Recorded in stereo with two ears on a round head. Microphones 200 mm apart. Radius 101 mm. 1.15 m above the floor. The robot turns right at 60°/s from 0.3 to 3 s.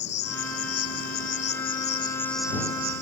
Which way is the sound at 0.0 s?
55° left.